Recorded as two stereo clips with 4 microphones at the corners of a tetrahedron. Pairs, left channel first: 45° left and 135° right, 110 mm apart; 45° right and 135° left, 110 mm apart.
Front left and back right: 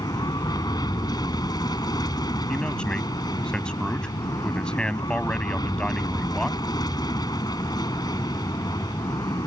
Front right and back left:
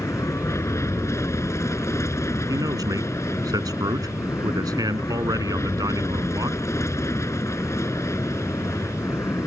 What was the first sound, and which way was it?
An aircraft, 10° left.